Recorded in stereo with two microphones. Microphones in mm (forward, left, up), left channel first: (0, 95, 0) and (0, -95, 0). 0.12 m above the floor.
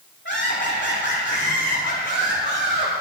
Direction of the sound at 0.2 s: 70° left (ahead or behind).